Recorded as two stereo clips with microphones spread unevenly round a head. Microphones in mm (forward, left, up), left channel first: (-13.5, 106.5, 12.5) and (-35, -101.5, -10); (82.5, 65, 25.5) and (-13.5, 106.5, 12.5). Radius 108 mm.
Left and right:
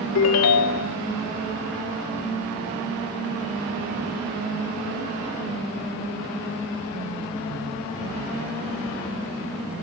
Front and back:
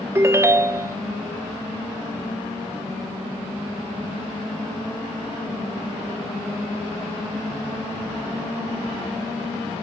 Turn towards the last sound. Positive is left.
turn(degrees=90)